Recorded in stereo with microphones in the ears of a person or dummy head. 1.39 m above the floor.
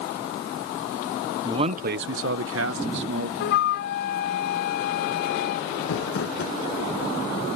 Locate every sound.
1.4 s a man speaking: 25° right (ahead or behind); by 3.3 s 55° right (ahead or behind)
3.4 s a flute: 55° left (ahead or behind)
5.8 s crumpling: 60° left (ahead or behind)